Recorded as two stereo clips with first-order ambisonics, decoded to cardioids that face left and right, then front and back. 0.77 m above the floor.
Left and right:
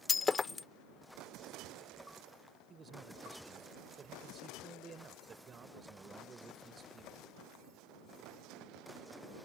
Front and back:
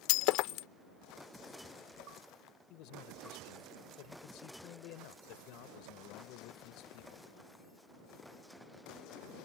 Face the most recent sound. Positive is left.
turn(degrees=-25)